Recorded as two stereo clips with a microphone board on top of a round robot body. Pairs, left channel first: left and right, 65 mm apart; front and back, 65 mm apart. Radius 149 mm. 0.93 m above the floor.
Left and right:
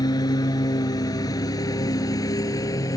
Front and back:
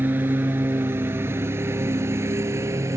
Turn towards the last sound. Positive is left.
turn(degrees=130)